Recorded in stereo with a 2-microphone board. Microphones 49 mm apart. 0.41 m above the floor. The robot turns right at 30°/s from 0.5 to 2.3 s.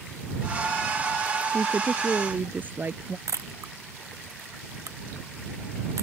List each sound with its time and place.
1.5 s a woman speaking: 15° right (ahead or behind); by 3.2 s 35° right (ahead or behind)
3.3 s a camera shutter: 85° right